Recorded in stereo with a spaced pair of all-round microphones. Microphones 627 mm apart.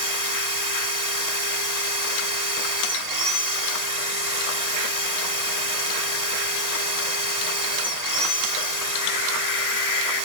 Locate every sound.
0.0 s a machine running: 75° right (ahead or behind)